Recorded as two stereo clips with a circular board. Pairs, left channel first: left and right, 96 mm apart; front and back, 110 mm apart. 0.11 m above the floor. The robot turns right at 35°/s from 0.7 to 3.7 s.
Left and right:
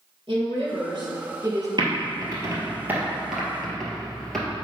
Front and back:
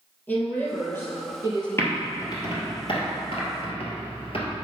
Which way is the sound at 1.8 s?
60° right.